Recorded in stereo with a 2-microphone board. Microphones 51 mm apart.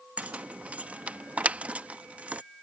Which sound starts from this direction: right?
Keys jangling, at 0.2 s.